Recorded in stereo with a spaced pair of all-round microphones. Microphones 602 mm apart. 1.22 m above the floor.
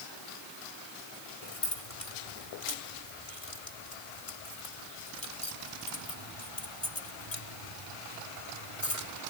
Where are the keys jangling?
70° left (ahead or behind).